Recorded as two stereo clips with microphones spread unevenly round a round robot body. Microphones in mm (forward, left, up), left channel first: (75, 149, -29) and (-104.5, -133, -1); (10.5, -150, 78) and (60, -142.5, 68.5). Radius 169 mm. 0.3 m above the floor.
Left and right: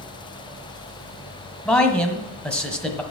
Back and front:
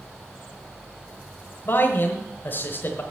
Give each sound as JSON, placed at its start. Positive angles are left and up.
{"t": 1.6, "sound": "a man speaking", "azimuth_deg": 140, "distance_m": 1.4}